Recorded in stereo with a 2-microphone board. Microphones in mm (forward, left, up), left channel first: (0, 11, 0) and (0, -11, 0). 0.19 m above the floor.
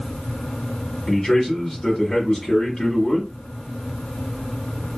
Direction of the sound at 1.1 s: 20° left (ahead or behind).